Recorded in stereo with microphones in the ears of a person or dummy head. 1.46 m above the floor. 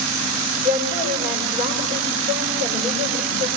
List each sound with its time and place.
0.6 s a woman speaking: 25° right (ahead or behind), 7 m